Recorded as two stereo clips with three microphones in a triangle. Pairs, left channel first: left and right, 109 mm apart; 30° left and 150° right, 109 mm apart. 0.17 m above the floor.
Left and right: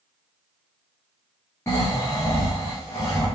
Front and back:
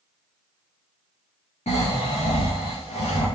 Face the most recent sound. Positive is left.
turn(degrees=25)